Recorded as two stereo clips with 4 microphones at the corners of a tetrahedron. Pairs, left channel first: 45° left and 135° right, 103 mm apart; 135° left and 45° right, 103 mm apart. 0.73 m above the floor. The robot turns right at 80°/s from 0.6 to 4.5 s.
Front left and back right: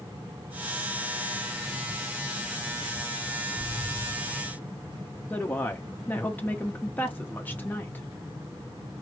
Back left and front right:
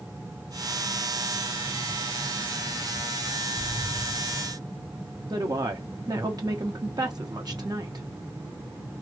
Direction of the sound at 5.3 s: 20° right.